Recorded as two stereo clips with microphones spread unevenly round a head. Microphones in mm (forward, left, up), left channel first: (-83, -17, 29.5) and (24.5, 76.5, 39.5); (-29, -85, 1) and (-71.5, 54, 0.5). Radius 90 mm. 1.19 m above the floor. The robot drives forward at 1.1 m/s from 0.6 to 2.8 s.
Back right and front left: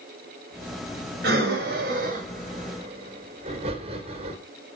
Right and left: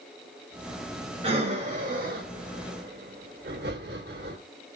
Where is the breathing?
45° left, 2.5 m; by 4.4 s 85° left, 2.0 m.